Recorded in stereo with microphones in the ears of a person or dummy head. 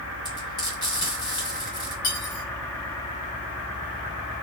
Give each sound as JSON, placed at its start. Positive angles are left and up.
{"t": 0.2, "sound": "frying", "side_deg": 35, "distance_m": 2.5}
{"t": 2.0, "sound": "cutlery clinking", "side_deg": 60, "distance_m": 1.3}